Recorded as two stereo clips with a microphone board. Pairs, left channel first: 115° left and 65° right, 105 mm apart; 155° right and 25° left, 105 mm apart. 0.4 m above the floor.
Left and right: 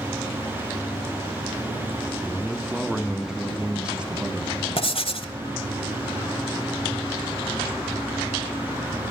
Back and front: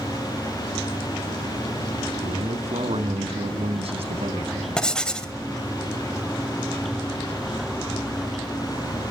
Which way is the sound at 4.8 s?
120° left.